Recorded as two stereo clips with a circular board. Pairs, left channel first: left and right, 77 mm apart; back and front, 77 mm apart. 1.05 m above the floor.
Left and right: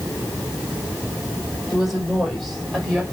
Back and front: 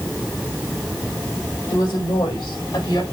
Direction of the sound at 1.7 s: 175° right.